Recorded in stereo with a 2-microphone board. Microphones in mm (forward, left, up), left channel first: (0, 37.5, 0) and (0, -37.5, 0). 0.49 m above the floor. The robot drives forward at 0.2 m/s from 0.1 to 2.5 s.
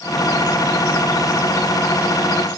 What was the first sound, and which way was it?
Only background noise.